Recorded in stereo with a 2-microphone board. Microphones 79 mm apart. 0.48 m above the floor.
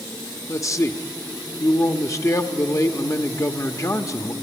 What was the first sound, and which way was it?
A man speaking, 40° left (ahead or behind).